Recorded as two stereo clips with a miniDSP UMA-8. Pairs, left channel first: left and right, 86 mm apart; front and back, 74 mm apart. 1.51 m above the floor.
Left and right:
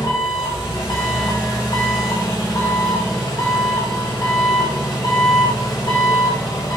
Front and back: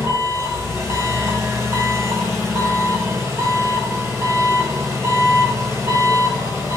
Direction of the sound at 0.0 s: 130° left.